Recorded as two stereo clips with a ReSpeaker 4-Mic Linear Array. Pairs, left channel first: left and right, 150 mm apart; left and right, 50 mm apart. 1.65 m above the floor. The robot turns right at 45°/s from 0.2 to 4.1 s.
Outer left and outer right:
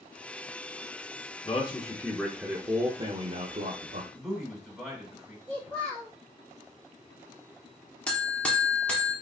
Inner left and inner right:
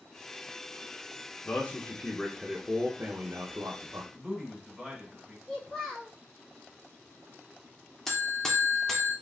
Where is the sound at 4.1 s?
Centre (ahead or behind), 2.5 m.